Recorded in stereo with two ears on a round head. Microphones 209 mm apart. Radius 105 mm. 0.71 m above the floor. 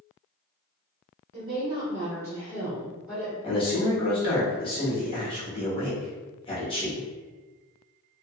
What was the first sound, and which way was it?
A woman speaking, 40° right (ahead or behind).